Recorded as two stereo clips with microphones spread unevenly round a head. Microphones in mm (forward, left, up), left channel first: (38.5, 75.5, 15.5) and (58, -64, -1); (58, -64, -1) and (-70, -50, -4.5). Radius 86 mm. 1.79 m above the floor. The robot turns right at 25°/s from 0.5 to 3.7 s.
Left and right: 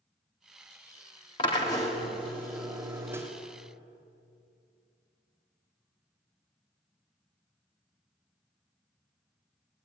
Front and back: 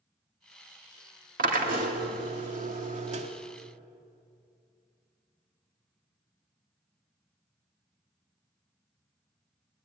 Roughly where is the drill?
Behind left.